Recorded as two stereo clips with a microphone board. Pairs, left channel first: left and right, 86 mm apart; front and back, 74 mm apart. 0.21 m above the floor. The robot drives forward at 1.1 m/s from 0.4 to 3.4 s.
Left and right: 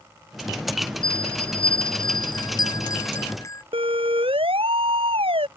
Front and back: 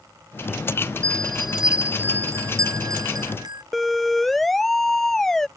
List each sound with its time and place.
1.0 s a bell: 70° left; by 3.6 s 150° left
3.7 s a siren: 90° right; by 5.5 s 85° right